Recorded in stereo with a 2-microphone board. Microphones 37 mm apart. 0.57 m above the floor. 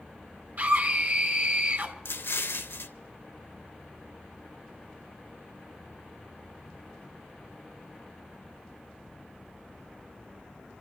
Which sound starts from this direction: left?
An explosion, at 2.0 s.